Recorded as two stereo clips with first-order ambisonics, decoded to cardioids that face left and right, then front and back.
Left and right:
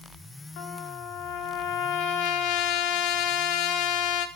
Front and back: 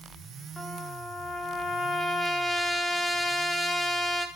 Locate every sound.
0.6 s a trumpet: 80° left, 1.0 m